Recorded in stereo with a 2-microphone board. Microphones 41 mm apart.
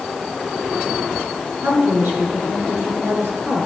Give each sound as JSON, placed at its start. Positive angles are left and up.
{"t": 1.6, "sound": "a woman speaking", "side_deg": -65, "distance_m": 3.5}